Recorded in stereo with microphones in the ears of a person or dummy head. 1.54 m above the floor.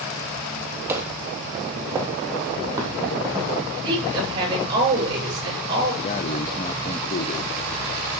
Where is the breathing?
25° left (ahead or behind), 0.5 m.